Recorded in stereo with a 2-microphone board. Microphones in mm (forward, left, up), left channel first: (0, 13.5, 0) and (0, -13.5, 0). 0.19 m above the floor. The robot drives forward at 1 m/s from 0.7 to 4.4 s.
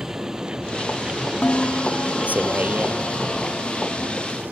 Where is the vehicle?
10° right (ahead or behind); by 4.5 s 70° right (ahead or behind).